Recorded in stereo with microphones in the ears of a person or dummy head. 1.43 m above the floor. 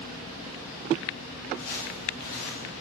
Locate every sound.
1.6 s footsteps: 50° left (ahead or behind), 8.5 m; by 2.7 s 55° left (ahead or behind), 8 m